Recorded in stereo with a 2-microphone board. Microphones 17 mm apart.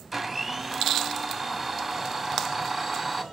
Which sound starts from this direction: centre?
A blender, at 0.1 s.